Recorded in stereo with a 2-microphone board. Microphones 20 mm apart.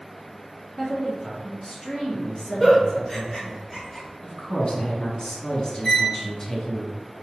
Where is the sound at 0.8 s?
35° left (ahead or behind), 1.3 m.